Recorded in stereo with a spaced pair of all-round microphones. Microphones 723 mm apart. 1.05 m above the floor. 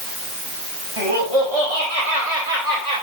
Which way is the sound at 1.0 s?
45° right (ahead or behind).